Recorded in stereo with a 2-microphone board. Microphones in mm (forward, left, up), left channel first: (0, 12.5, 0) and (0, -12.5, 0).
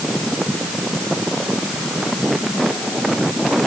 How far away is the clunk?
I don't hear a clunk.